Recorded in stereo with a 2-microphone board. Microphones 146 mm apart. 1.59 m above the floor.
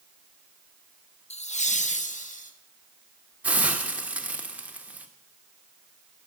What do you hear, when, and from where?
1.3 s laughter: 45° left (ahead or behind), 0.7 m; by 2.5 s 60° left (ahead or behind), 1.9 m
3.4 s a hiss: 10° right (ahead or behind), 1.4 m